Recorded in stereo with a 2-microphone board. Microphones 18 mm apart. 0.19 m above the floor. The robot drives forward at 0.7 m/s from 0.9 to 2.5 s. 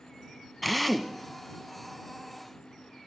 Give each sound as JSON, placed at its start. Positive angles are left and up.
{"t": 0.6, "sound": "a drill", "side_deg": 5, "distance_m": 1.1}